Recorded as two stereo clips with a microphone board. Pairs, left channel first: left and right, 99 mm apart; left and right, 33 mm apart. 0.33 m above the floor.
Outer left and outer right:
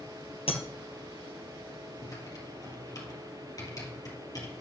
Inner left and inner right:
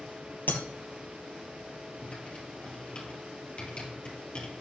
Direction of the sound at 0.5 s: 75° left (ahead or behind).